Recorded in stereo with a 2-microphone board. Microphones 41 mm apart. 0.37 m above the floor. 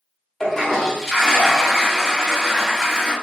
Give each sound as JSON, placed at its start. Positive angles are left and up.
{"t": 0.4, "sound": "a toilet flushing", "side_deg": 10, "distance_m": 1.0}